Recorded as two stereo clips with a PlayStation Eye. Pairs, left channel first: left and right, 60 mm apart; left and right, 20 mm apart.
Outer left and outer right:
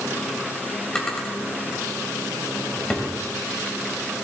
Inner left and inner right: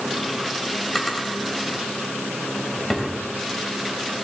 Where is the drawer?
10° left (ahead or behind), 2.5 m.